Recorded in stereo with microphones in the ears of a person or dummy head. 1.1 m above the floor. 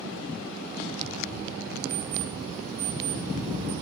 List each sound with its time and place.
1.9 s an alarm clock: 15° right (ahead or behind), 4 m